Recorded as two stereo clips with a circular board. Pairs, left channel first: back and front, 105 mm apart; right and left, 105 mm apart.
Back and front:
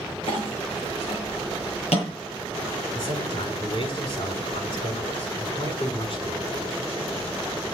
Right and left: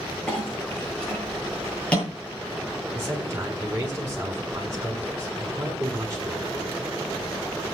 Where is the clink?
170° right, 9.5 m.